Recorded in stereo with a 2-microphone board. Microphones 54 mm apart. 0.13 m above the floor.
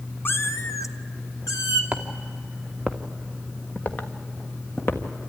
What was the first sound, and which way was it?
A cat meowing, 40° left (ahead or behind).